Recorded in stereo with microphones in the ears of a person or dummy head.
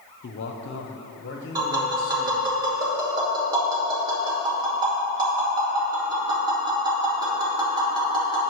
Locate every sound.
0.2 s a man speaking: 55° left (ahead or behind), 0.7 m; by 2.5 s 60° left (ahead or behind), 2.0 m
1.6 s tapping: 25° right (ahead or behind), 2.5 m